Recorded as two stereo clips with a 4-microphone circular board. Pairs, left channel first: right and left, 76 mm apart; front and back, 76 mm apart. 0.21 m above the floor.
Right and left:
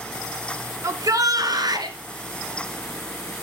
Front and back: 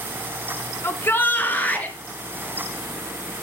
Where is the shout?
50° left, 1.7 m; by 2.0 s 70° left, 3 m.